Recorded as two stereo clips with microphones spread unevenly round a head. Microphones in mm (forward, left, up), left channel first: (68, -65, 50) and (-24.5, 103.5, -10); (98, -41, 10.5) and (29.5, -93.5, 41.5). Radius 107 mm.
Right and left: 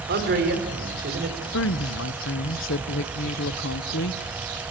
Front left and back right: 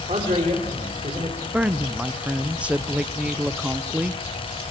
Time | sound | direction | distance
0.1 | a man speaking | 165° left | 4.5 m
1.5 | a woman speaking | 70° right | 0.9 m